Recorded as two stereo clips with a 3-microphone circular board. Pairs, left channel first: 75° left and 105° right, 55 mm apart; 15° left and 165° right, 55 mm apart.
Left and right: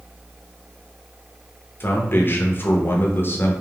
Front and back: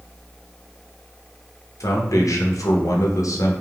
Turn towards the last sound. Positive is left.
turn(degrees=25)